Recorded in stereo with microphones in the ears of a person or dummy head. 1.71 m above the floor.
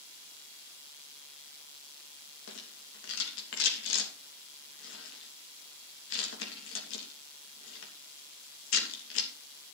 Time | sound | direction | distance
2.5 | a rattle | 75° left (ahead or behind) | 3 m